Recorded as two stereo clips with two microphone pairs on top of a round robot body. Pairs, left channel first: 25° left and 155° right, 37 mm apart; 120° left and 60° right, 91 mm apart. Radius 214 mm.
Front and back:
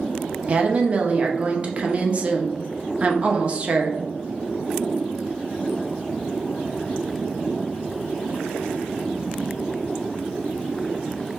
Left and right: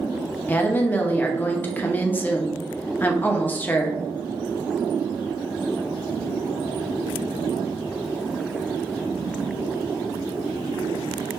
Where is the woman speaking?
165° left, 0.9 m.